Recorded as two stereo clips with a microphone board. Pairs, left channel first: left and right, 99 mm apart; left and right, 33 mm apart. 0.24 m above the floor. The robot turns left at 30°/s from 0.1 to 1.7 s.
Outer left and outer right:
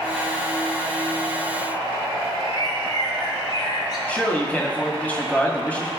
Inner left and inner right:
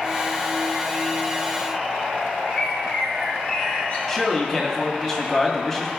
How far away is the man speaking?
About 1.8 m.